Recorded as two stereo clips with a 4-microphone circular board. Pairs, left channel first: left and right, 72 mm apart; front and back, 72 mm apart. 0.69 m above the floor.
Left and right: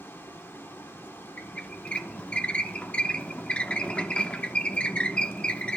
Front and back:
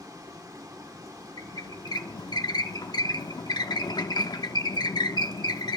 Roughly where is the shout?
No shout in this recording.